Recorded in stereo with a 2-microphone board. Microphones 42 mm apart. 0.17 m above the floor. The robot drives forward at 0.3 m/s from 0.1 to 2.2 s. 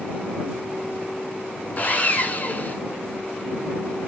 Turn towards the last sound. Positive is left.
turn(degrees=45)  # may be behind; listen again after turning